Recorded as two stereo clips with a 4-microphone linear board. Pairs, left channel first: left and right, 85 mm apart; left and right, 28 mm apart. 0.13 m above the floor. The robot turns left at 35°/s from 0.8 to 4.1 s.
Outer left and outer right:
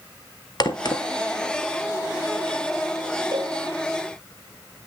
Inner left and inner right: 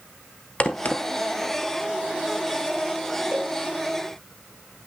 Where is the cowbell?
55° right (ahead or behind), 3.5 m; by 3.6 s 65° right (ahead or behind), 3.5 m.